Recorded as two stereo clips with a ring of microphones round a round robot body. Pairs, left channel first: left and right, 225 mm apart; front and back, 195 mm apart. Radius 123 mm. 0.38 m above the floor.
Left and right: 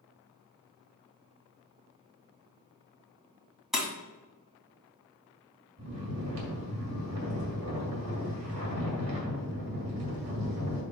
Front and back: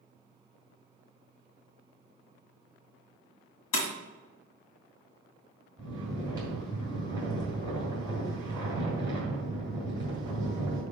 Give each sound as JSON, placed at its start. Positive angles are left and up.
{"t": 3.7, "sound": "breaking glass", "azimuth_deg": 0, "distance_m": 1.9}
{"t": 5.8, "sound": "snoring", "azimuth_deg": -110, "distance_m": 3.5}